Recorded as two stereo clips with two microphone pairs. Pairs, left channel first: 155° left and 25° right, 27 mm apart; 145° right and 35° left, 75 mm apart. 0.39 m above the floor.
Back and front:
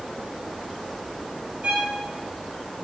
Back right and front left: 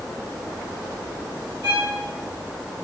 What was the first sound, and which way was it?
A violin, 15° right.